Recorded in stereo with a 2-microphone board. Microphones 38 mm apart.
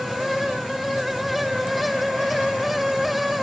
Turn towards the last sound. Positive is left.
No sound to turn to.